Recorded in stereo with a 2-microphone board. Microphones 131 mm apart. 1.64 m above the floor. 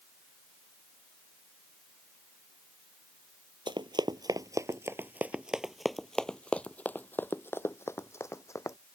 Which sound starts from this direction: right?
Running footsteps, at 3.7 s.